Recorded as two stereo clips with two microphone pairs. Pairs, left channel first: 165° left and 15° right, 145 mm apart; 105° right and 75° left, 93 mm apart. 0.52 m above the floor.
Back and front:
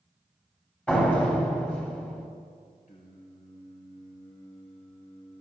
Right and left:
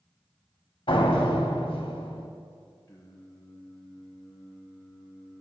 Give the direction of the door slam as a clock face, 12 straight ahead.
4 o'clock.